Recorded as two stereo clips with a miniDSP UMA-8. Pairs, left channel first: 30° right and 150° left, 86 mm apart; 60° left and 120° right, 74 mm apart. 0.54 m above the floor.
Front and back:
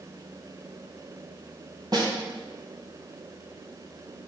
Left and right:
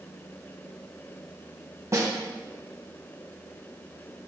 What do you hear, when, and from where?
1.9 s a snare drum: 170° right, 2 m